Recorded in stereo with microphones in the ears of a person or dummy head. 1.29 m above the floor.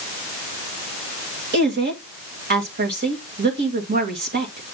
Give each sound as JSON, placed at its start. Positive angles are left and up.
{"t": 1.5, "sound": "a woman speaking", "side_deg": -45, "distance_m": 2.0}